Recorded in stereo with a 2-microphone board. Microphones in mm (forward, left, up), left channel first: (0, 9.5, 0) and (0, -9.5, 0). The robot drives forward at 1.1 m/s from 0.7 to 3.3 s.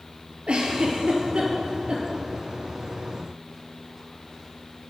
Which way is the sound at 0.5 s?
75° right (ahead or behind).